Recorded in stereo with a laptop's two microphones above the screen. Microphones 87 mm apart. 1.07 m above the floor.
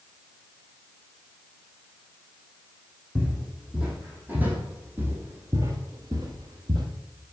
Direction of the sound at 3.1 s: 10° right (ahead or behind).